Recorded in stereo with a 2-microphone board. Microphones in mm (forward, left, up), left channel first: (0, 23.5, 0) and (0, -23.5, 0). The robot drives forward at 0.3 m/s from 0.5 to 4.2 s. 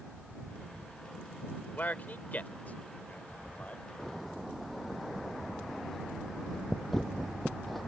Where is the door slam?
5° left (ahead or behind).